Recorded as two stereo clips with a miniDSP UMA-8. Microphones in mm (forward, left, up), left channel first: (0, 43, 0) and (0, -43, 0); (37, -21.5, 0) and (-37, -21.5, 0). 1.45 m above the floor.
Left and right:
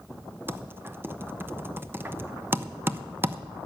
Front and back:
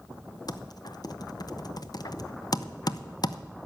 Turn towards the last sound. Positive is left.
turn(degrees=-25)